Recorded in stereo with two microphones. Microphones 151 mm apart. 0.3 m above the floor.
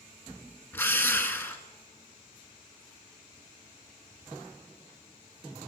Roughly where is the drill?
Centre.